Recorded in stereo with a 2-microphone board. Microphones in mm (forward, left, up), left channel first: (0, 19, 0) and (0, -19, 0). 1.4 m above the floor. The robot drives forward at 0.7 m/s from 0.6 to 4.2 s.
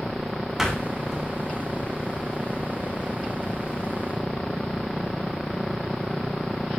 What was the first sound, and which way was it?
A door slam, 10° right (ahead or behind).